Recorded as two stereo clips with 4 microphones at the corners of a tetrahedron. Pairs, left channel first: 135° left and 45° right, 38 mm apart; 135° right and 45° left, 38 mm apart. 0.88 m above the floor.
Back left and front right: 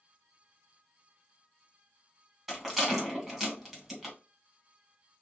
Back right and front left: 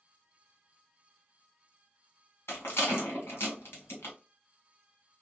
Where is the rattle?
130° right, 1.9 m.